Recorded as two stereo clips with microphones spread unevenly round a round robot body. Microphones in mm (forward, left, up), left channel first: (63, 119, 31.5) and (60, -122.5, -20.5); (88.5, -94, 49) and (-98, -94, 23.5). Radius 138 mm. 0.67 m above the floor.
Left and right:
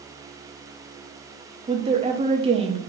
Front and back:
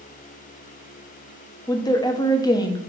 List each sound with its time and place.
1.7 s a woman speaking: 70° right, 1.0 m